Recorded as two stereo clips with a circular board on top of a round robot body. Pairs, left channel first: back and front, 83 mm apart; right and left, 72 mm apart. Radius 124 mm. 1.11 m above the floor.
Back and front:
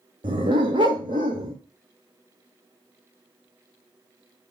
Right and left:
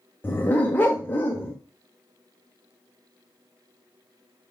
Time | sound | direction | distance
0.2 | a dog barking | 30° right | 1.0 m